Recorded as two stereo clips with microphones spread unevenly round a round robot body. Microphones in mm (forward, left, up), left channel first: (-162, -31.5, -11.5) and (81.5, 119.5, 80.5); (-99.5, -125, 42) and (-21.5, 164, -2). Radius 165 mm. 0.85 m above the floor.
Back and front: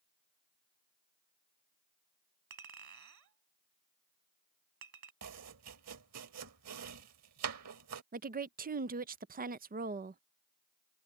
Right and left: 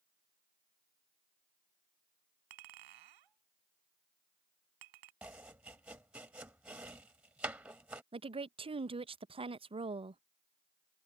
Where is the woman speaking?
100° left.